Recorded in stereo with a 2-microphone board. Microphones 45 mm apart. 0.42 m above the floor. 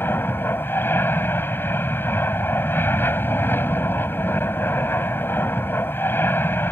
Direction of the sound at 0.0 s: 55° left (ahead or behind).